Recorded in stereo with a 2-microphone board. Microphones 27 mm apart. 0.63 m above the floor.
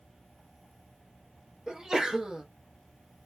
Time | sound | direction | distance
1.7 | a sneeze | 30° right (ahead or behind) | 0.6 m